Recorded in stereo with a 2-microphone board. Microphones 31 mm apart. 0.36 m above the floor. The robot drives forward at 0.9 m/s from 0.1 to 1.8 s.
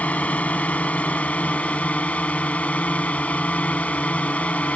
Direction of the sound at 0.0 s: 50° left (ahead or behind).